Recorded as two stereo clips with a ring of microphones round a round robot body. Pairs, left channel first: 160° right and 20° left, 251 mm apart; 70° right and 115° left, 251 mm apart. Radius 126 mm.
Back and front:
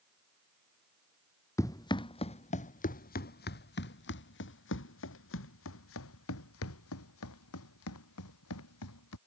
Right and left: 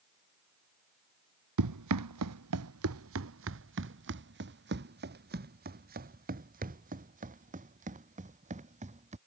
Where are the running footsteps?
125° left; by 9.2 s 175° left.